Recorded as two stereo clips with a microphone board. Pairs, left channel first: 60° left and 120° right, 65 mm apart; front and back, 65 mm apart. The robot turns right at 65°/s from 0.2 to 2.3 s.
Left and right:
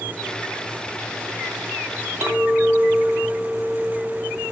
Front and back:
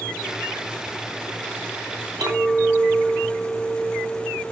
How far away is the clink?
About 4.5 m.